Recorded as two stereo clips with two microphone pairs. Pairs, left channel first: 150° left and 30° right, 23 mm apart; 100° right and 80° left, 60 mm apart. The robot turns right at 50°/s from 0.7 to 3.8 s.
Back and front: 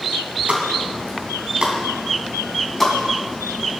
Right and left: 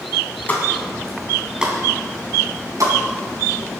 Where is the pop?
40° right, 3 m; by 3.0 s 75° left, 3 m.